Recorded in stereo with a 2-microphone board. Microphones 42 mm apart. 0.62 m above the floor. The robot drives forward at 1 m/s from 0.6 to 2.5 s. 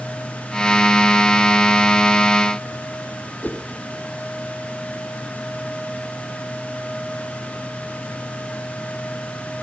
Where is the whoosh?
45° left (ahead or behind), 2.5 m.